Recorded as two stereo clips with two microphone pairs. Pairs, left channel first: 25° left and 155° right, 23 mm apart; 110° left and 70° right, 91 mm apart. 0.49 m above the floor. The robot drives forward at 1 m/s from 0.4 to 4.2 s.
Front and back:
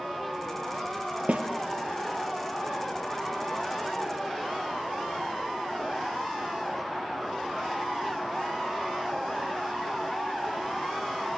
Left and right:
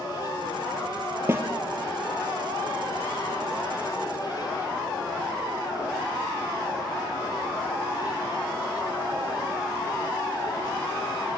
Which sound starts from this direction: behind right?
A snare drum, at 1.3 s.